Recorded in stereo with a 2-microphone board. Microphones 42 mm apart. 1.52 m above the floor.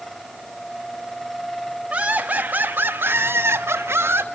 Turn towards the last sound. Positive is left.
turn(degrees=-80)